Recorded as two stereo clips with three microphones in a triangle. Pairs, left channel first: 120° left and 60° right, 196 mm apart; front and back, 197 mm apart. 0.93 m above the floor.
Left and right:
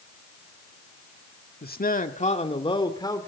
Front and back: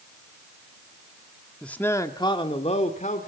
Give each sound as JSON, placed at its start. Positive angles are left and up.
{"t": 1.6, "sound": "a man speaking", "azimuth_deg": 85, "distance_m": 1.7}